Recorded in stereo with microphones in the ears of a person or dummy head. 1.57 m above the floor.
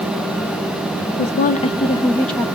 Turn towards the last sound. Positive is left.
turn(degrees=0)  # may be behind; listen again after turning